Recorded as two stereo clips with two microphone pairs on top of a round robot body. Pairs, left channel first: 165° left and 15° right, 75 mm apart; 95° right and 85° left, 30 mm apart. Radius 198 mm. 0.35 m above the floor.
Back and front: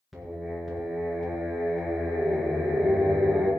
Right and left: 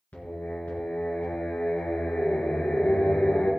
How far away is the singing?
About 3 m.